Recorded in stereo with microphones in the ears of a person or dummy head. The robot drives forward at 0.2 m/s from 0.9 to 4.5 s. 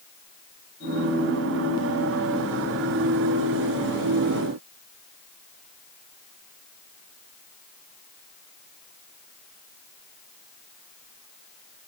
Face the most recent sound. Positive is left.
No sound to turn to.